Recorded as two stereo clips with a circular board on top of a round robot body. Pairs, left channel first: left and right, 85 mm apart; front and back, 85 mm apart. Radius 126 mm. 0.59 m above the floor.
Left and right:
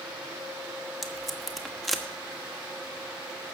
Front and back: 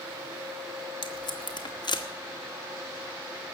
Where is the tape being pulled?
5° left, 1.9 m.